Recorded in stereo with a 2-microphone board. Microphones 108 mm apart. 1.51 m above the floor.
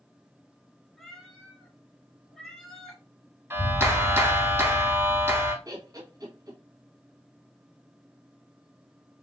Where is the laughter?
35° right (ahead or behind), 1.5 m.